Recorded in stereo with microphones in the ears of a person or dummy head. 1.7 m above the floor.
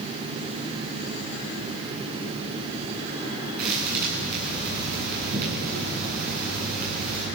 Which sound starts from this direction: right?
A thud, at 3.6 s.